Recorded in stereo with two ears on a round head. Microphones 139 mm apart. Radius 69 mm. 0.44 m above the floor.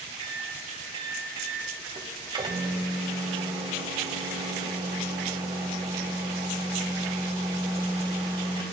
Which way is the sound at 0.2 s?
30° right (ahead or behind).